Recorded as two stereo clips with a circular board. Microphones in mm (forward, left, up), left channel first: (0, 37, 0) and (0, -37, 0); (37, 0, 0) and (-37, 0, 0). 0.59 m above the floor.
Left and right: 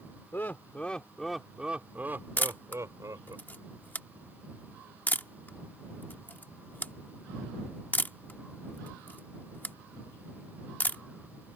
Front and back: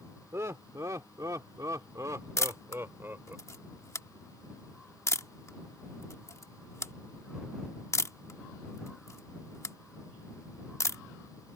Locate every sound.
0.3 s laughter: 140° left; by 3.4 s 120° right
2.4 s a camera shutter: 30° left